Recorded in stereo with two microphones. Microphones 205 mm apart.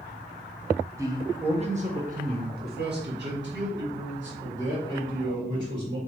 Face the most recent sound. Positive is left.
turn(degrees=-70)  # may be behind; listen again after turning